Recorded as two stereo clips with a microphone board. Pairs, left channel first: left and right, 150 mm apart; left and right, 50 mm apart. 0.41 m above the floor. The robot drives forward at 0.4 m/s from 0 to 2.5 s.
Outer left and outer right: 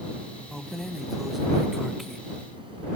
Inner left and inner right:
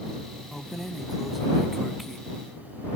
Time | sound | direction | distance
0.5 | keys jangling | centre (ahead or behind) | ?